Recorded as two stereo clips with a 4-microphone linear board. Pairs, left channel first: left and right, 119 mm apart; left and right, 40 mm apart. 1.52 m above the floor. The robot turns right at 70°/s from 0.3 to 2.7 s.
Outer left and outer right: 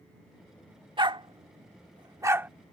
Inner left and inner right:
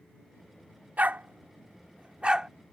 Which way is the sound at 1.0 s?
40° right (ahead or behind).